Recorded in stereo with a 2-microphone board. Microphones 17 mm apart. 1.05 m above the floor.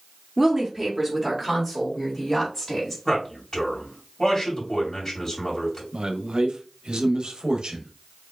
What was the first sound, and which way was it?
A woman speaking, 15° right (ahead or behind).